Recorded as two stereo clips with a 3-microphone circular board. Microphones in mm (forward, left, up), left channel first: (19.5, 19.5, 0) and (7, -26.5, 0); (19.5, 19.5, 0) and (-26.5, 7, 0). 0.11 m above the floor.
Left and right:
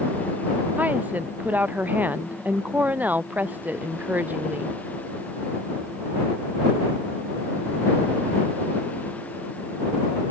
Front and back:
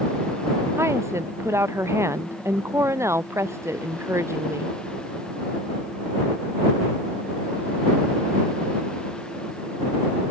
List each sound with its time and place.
0.8 s a woman speaking: 155° right